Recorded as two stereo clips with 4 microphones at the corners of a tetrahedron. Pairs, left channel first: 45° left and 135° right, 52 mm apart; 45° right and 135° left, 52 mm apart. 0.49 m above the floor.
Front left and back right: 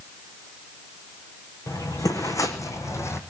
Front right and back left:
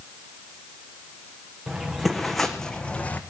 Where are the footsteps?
60° left, 2 m; by 3.2 s 10° left, 1.4 m.